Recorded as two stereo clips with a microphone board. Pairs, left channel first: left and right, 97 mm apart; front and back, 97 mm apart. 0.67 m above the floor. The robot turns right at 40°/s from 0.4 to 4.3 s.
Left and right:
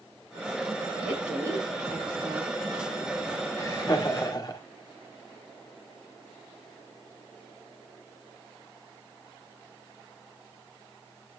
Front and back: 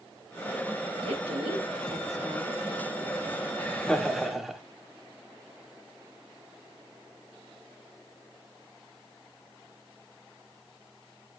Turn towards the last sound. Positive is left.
turn(degrees=95)